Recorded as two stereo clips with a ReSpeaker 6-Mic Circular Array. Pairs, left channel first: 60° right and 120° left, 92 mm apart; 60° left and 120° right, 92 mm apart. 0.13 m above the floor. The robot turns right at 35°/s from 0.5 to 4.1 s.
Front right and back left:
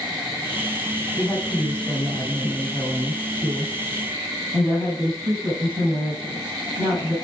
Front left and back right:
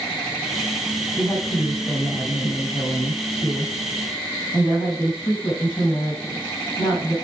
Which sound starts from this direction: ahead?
A woman speaking, at 1.2 s.